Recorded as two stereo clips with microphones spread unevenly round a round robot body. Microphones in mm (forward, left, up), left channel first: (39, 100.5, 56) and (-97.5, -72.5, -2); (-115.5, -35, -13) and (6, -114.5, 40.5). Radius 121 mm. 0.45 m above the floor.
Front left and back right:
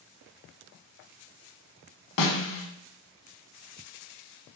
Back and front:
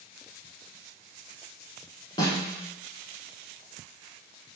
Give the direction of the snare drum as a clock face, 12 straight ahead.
10 o'clock.